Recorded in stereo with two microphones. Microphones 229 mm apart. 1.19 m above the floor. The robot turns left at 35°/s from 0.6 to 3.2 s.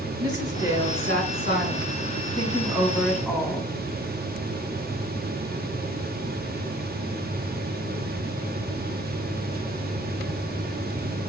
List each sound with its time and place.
0.2 s a woman speaking: 95° right, 3.5 m; by 3.7 s 175° left, 3.5 m